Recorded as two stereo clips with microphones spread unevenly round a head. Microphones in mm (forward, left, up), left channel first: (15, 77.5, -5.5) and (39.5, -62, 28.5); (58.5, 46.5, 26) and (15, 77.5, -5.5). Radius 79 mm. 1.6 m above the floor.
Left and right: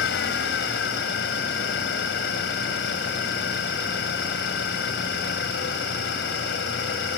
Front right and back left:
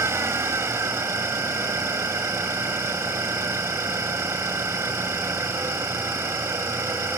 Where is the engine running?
100° left.